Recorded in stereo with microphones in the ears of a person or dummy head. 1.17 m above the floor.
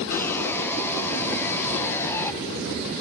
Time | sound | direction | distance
0.1 | sawing | 10° left (ahead or behind) | 0.5 m